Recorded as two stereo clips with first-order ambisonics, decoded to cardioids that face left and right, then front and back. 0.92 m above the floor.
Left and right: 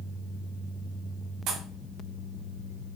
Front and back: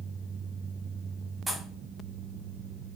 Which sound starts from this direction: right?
A pop, at 1.5 s.